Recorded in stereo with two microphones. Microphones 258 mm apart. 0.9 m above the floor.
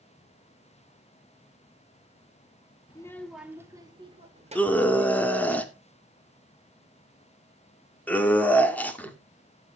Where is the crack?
No crack in this recording.